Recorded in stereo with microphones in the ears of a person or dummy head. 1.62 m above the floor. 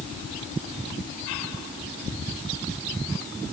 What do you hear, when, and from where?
Only background noise.